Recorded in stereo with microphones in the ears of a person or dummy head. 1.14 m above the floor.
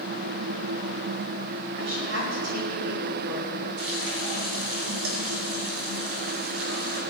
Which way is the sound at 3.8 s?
85° right.